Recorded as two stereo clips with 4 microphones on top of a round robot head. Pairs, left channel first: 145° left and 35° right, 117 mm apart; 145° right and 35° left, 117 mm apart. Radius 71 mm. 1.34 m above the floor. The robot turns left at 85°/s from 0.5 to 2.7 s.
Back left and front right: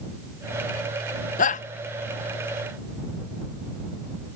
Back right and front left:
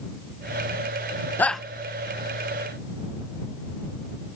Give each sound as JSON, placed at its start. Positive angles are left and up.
{"t": 1.4, "sound": "a shout", "azimuth_deg": 140}